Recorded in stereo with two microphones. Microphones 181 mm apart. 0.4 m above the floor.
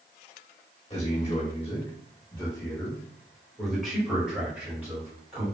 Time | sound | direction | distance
0.9 | a man speaking | 35° left (ahead or behind) | 1.4 m